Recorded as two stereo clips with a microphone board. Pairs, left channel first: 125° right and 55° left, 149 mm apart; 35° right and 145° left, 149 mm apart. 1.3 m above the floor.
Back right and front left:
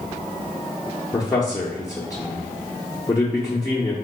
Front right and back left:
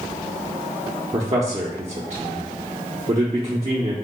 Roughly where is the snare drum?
I don't hear a snare drum.